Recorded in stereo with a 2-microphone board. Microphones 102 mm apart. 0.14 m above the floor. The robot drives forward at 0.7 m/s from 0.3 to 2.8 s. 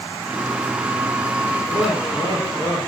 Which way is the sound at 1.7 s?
50° right (ahead or behind).